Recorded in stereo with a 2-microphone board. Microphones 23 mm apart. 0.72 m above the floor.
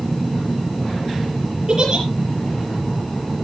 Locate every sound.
1.7 s a giggle: 40° right (ahead or behind), 7.5 m